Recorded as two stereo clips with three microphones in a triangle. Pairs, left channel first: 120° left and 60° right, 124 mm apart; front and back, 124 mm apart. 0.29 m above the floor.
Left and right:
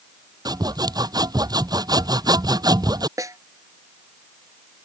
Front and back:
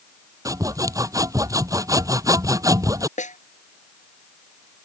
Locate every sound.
0.5 s sawing: 115° right
3.2 s a snare drum: 5° left